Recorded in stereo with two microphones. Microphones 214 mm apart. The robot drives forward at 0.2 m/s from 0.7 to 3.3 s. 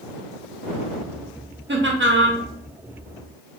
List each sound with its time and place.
1.7 s laughter: 60° right (ahead or behind), 0.7 m; by 2.4 s 70° right (ahead or behind), 0.7 m